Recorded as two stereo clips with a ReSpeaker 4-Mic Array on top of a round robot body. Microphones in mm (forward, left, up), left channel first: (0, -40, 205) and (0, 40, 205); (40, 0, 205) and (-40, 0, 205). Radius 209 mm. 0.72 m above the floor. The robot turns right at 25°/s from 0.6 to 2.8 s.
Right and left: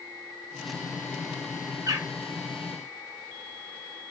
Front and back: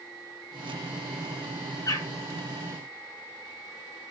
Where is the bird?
40° left, 2.5 m; by 2.1 s 45° left, 2.5 m.